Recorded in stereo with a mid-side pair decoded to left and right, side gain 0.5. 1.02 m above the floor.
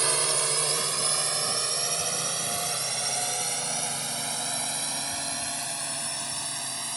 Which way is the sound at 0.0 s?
35° right.